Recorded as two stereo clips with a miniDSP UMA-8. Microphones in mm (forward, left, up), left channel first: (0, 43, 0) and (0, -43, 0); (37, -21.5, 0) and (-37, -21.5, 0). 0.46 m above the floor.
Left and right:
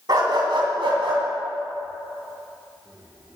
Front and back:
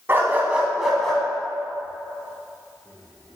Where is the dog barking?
120° right, 1.7 m; by 3.4 s 40° right, 3 m.